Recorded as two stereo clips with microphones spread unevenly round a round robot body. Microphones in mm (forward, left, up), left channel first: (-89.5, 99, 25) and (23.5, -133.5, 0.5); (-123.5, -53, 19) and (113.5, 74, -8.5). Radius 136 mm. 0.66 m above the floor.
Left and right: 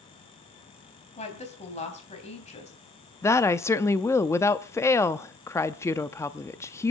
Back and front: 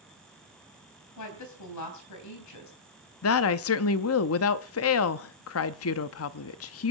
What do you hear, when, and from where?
1.2 s a woman speaking: straight behind, 3.5 m
3.2 s a woman speaking: 160° right, 0.7 m